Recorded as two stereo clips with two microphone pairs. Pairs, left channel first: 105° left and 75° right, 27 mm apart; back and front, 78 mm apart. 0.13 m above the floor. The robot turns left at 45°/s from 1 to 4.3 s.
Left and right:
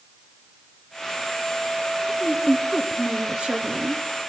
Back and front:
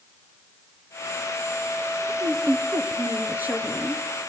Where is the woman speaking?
5° left, 2.0 m; by 4.0 s 85° right, 2.0 m.